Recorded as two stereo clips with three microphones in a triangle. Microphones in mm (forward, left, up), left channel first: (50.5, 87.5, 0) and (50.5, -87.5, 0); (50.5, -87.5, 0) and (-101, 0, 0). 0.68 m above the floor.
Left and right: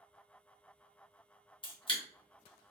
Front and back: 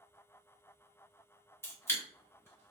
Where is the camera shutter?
40° left, 0.9 m.